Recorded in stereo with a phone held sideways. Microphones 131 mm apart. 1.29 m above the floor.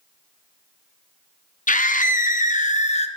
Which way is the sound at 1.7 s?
70° left (ahead or behind).